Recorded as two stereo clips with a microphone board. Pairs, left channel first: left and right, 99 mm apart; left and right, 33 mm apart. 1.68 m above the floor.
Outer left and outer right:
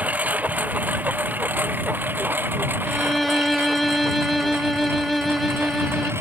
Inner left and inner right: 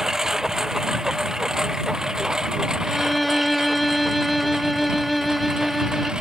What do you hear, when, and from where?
0.0 s a lawn mower: 15° right (ahead or behind); by 6.2 s 25° right (ahead or behind)
2.9 s a violin: centre (ahead or behind)